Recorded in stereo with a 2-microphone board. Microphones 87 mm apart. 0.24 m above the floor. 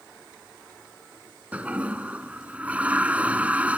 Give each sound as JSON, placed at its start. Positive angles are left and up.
{"t": 1.5, "sound": "a toilet flushing", "side_deg": -15}